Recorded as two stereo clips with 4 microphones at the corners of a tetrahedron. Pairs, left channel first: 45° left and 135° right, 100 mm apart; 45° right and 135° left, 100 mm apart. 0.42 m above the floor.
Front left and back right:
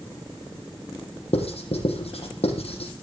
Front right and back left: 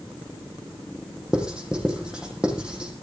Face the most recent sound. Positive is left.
turn(degrees=55)